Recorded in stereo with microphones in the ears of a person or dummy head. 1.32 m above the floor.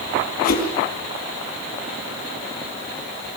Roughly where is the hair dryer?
I don't hear a hair dryer.